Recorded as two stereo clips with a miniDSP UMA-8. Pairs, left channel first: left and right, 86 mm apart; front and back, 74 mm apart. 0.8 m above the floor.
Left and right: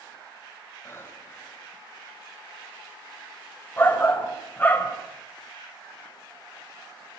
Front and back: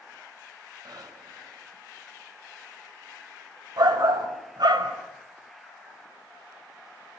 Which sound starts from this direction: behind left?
Breathing, at 0.8 s.